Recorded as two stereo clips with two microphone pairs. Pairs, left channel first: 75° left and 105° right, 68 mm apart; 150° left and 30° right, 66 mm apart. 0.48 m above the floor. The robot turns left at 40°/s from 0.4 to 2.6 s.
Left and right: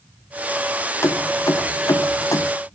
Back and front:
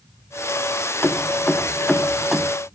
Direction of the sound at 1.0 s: 110° left.